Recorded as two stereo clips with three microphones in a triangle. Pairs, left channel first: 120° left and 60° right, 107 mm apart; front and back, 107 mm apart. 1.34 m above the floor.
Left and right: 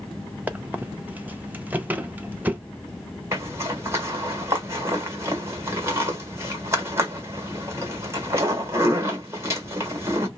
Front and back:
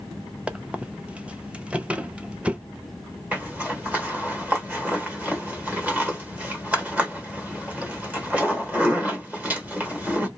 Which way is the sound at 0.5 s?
110° right.